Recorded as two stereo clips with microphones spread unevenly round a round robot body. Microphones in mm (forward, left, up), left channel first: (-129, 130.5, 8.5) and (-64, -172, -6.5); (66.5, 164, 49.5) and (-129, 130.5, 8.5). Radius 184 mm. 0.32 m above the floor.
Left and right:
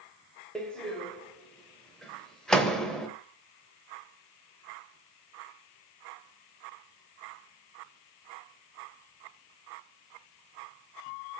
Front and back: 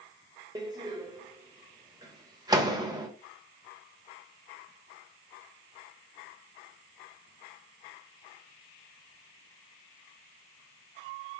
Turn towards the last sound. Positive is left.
turn(degrees=-165)